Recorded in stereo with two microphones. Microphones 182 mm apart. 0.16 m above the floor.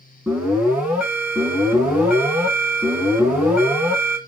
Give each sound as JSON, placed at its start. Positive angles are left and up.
{"t": 0.3, "sound": "an alarm", "side_deg": -10, "distance_m": 2.0}